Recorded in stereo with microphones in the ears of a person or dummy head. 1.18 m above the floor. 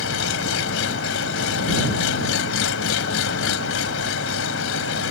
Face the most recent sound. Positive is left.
turn(degrees=85)